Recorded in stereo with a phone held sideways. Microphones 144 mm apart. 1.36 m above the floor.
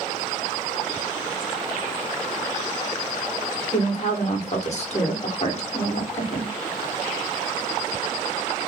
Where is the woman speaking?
50° left (ahead or behind), 1.1 m.